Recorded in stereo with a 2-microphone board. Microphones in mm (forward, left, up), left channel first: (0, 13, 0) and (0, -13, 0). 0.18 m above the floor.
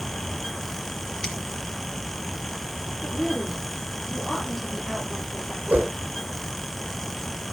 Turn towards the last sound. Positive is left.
turn(degrees=-70)  # may be behind; listen again after turning